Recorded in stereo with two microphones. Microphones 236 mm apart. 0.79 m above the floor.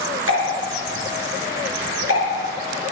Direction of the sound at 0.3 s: 75° right (ahead or behind).